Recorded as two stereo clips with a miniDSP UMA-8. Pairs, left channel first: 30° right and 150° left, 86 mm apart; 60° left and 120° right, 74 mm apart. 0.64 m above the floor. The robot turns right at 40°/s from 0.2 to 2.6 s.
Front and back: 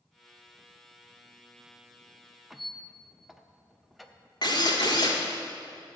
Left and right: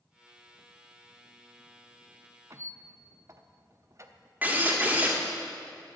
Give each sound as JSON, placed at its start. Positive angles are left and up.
{"t": 2.5, "sound": "a squeak", "azimuth_deg": -125, "distance_m": 0.6}
{"t": 4.4, "sound": "a drill", "azimuth_deg": -55, "distance_m": 1.4}